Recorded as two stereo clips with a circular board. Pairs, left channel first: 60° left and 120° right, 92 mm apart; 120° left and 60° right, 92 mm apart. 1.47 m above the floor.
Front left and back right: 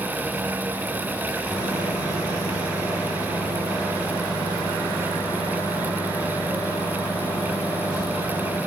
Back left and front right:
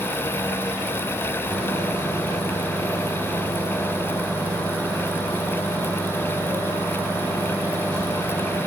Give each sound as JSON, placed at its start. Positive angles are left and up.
{"t": 1.5, "sound": "a microwave", "azimuth_deg": 45, "distance_m": 2.5}